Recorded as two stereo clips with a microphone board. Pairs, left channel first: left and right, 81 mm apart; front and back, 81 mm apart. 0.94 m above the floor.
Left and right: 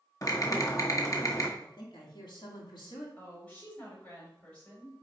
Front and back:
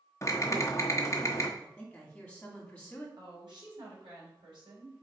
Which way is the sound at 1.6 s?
75° left.